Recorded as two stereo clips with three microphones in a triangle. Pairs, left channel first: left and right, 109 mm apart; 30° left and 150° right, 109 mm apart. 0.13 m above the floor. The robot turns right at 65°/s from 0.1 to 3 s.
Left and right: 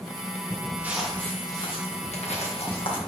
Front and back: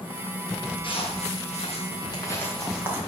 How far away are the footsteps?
About 2.5 m.